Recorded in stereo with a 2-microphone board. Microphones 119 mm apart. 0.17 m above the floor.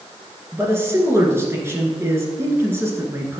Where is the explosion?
No explosion in this recording.